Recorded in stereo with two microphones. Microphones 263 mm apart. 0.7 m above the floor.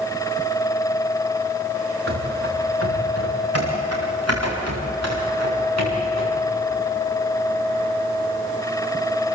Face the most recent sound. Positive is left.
turn(degrees=-80)